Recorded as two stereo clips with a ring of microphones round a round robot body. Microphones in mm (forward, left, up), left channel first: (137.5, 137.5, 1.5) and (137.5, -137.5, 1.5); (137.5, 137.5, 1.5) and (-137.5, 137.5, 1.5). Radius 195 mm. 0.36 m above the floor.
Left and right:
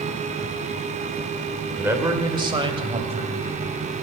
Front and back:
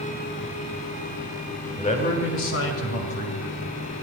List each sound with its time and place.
1.8 s a man speaking: 20° right, 1.4 m; by 3.4 s 25° right, 3 m